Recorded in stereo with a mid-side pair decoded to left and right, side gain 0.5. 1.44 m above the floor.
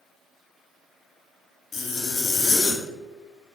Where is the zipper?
55° left, 0.5 m.